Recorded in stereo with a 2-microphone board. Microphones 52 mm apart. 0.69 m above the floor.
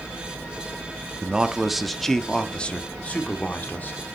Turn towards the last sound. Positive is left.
turn(degrees=35)  # may be behind; listen again after turning